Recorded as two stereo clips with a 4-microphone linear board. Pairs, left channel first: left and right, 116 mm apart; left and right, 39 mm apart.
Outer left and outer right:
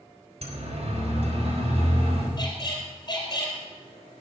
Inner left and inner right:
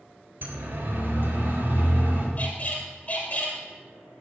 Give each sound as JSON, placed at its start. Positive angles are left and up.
{"t": 0.4, "sound": "a siren", "side_deg": -65, "distance_m": 3.5}
{"t": 2.4, "sound": "a squeak", "side_deg": 35, "distance_m": 3.5}